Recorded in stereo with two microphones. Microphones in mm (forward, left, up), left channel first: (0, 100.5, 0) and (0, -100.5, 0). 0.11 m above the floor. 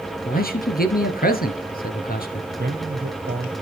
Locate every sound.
0.2 s a man speaking: 50° left (ahead or behind), 2.0 m
2.5 s a man speaking: 50° right (ahead or behind), 1.9 m